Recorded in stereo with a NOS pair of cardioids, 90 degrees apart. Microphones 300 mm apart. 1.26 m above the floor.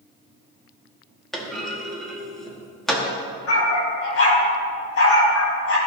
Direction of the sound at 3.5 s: 50° left.